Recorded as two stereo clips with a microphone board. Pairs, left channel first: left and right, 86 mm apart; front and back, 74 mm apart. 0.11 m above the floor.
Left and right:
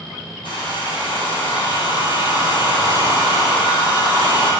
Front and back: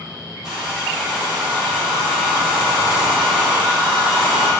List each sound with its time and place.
0.4 s a hair dryer: 95° left, 3 m